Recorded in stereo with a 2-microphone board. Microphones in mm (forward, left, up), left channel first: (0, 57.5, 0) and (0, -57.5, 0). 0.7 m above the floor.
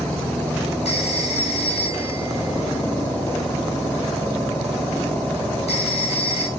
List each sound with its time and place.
0.8 s a phone ringing: 65° left (ahead or behind), 4 m